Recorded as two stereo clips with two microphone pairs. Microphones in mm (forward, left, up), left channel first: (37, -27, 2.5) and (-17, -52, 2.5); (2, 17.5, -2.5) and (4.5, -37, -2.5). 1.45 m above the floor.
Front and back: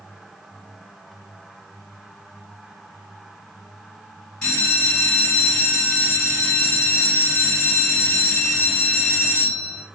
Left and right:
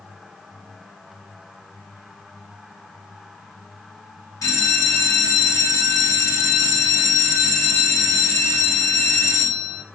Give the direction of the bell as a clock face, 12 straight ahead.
9 o'clock.